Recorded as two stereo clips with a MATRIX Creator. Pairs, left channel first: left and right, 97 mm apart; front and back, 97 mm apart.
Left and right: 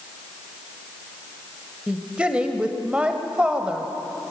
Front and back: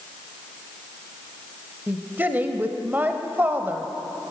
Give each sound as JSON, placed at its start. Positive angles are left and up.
{"t": 1.9, "sound": "a woman speaking", "azimuth_deg": -150, "distance_m": 0.9}